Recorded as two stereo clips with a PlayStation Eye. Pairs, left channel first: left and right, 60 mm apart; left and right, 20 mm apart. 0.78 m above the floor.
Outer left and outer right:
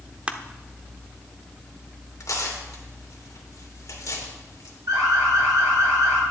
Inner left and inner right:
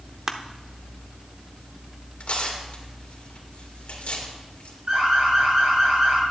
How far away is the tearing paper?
About 2.5 m.